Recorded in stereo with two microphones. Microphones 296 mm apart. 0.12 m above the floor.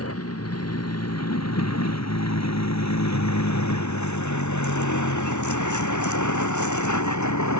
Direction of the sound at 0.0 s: 55° left (ahead or behind).